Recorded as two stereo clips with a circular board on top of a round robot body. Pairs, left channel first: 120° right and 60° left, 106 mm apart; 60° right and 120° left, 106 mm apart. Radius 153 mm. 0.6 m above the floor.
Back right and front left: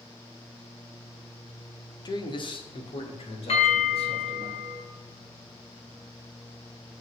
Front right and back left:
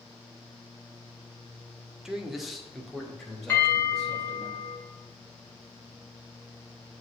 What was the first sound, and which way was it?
A man speaking, 155° right.